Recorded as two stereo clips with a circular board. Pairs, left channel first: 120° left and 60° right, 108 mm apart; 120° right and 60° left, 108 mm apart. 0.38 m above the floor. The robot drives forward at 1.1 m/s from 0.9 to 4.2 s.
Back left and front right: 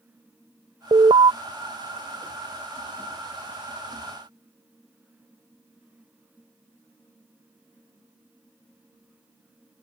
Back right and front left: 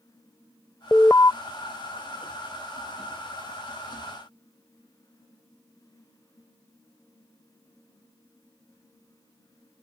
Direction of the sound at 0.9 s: 45° right.